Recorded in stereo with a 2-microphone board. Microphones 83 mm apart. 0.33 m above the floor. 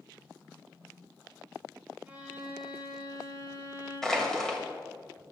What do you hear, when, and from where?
2.1 s a violin: 20° right (ahead or behind), 1.8 m
4.0 s crushing: 5° left (ahead or behind), 1.7 m